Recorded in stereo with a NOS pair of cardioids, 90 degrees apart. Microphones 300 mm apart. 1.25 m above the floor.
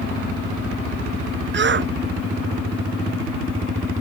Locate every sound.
1.5 s a shout: 40° right